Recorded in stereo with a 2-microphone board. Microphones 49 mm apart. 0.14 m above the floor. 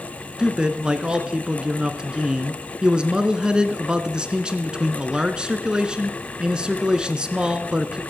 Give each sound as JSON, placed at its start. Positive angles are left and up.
{"t": 0.4, "sound": "a man speaking", "side_deg": -20, "distance_m": 1.2}